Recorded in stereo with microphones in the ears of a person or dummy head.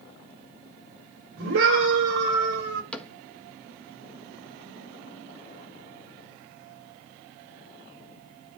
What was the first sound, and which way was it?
A scream, 85° right.